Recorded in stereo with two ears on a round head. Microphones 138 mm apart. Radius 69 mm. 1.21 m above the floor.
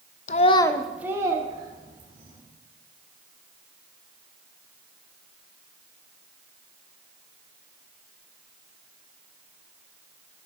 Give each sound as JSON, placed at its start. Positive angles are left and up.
{"t": 0.3, "sound": "a child speaking", "side_deg": 45, "distance_m": 0.6}